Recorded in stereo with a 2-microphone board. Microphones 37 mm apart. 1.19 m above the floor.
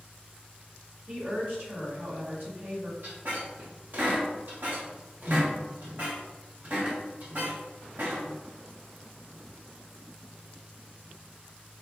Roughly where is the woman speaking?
Right.